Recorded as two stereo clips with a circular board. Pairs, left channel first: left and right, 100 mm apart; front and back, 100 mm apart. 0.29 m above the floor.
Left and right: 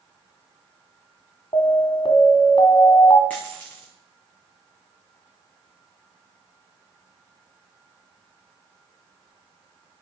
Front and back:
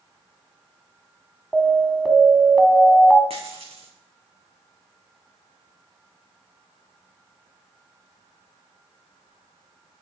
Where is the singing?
I don't hear singing.